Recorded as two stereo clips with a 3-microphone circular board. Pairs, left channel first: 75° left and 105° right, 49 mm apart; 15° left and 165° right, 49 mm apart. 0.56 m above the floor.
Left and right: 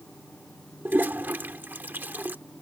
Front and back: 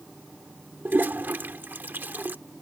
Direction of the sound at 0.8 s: 135° right.